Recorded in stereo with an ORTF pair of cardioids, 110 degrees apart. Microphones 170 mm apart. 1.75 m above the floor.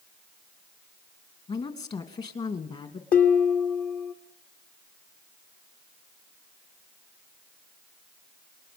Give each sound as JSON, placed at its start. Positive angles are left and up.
{"t": 1.5, "sound": "a woman speaking", "azimuth_deg": 35, "distance_m": 2.5}
{"t": 3.1, "sound": "dishes clattering", "azimuth_deg": 60, "distance_m": 3.0}